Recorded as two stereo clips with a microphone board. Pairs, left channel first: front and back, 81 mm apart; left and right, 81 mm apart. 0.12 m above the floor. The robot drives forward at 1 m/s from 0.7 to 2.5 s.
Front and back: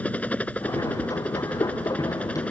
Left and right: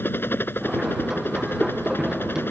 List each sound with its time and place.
0.0 s a helicopter: 55° left; by 2.5 s 60° left